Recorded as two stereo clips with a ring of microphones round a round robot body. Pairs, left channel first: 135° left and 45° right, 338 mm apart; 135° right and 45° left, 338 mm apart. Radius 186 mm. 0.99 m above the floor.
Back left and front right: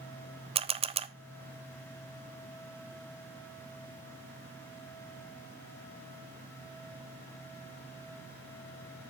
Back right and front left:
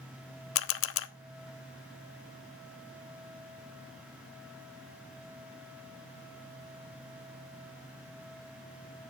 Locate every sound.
0.6 s a camera shutter: 110° right, 0.6 m